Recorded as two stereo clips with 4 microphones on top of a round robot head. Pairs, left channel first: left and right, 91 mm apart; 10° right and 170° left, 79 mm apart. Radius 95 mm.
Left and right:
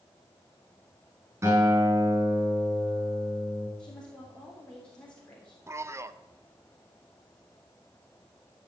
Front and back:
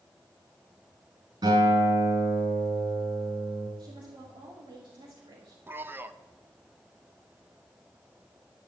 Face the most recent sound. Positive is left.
turn(degrees=-135)